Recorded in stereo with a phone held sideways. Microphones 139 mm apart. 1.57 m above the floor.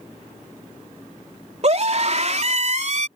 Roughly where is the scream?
Right.